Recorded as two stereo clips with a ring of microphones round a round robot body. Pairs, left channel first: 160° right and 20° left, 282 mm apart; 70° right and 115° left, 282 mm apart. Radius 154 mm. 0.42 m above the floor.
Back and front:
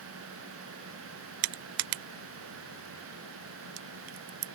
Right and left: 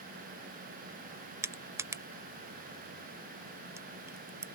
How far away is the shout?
I don't hear a shout.